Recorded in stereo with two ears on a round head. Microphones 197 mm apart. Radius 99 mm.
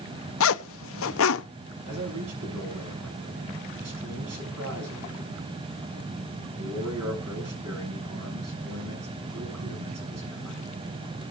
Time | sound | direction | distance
0.4 | a zipper | 65° left (ahead or behind) | 0.6 m
1.9 | a man speaking | 80° right | 8.5 m